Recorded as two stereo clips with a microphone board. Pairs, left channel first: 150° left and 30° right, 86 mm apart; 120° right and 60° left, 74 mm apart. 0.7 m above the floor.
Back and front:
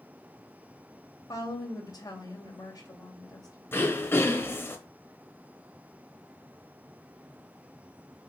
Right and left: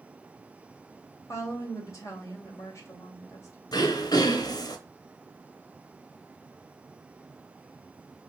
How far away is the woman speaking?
About 3 m.